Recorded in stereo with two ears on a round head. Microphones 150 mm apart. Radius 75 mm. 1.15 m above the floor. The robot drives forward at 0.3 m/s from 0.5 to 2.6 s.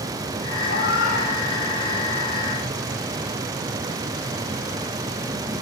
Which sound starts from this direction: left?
A cat meowing, at 0.7 s.